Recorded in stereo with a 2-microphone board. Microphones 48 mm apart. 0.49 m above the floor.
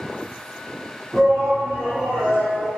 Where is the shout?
45° right (ahead or behind), 1.6 m; by 2.7 s 20° left (ahead or behind), 1.1 m.